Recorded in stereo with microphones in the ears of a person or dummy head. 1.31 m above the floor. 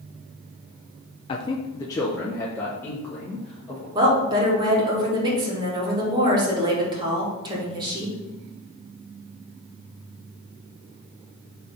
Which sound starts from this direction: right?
A woman speaking, at 4.0 s.